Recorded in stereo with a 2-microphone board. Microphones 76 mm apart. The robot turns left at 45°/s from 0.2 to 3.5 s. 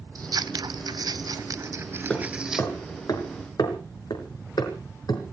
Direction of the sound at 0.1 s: 60° right (ahead or behind).